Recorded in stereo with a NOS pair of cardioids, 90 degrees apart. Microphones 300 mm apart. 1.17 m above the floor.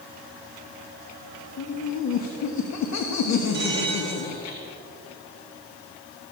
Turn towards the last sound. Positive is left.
turn(degrees=-40)